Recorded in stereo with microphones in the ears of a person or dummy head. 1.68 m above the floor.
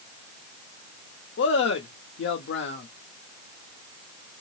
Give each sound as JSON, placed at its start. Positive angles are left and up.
{"t": 1.4, "sound": "a man speaking", "side_deg": 70, "distance_m": 0.9}